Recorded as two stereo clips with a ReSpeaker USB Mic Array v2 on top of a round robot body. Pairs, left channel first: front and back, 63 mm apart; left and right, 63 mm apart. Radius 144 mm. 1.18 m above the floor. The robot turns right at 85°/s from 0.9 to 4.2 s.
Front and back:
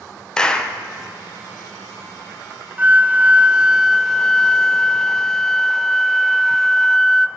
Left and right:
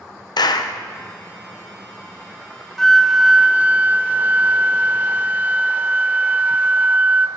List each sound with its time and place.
0.4 s a clap: 80° left, 0.8 m
2.8 s a flute: 165° left, 0.6 m; by 7.3 s 75° right, 0.6 m